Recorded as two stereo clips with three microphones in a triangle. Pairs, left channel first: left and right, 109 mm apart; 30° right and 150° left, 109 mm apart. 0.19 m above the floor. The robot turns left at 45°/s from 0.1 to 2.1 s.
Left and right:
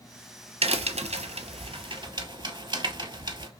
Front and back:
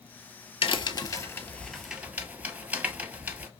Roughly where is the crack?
Ahead right.